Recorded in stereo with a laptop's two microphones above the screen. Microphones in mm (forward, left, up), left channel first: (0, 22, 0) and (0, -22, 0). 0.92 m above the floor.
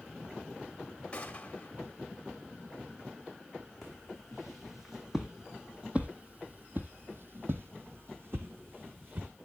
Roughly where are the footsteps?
Centre.